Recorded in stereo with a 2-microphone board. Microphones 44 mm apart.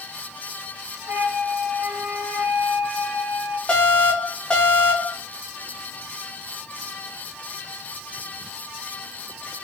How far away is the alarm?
About 1.5 m.